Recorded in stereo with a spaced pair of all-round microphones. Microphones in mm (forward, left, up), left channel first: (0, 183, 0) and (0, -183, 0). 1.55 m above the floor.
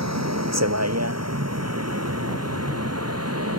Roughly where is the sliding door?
I don't hear a sliding door.